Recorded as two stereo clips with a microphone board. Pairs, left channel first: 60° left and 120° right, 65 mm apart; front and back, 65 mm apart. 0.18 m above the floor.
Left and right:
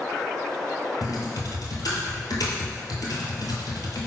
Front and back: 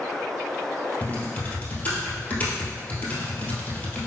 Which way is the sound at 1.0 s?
60° left.